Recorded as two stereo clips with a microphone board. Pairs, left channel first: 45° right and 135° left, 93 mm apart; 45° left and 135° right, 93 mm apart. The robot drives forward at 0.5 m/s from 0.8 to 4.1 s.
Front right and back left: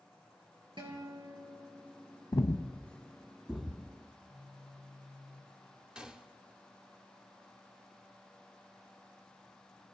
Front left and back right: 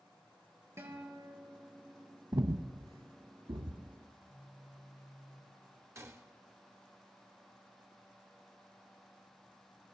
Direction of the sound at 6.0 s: 150° right.